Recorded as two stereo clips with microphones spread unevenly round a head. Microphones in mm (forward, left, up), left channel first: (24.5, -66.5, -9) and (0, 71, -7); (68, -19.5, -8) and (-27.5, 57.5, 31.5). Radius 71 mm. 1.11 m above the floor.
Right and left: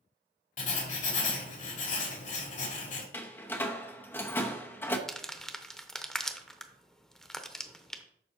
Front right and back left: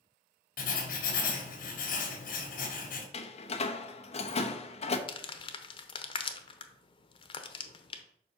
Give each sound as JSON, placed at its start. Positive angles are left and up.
{"t": 0.6, "sound": "writing", "azimuth_deg": -45, "distance_m": 2.0}
{"t": 3.1, "sound": "a door slam", "azimuth_deg": -5, "distance_m": 0.9}
{"t": 5.1, "sound": "crumpling", "azimuth_deg": 5, "distance_m": 0.8}